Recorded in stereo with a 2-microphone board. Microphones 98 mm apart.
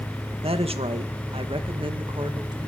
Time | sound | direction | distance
0.4 | a woman speaking | 80° right | 2.0 m